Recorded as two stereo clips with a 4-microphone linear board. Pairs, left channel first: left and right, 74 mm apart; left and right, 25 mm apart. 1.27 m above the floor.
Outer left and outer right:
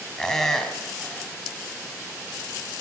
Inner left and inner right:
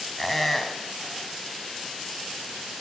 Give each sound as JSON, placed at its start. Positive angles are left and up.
{"t": 0.2, "sound": "a squeak", "side_deg": 5, "distance_m": 3.0}